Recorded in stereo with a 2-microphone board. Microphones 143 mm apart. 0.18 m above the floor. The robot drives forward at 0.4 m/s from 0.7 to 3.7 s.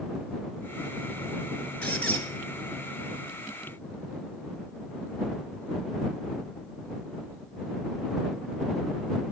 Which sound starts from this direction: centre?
A squeak, at 1.8 s.